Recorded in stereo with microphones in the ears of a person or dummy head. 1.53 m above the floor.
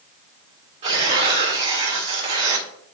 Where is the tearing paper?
30° right (ahead or behind), 1.6 m.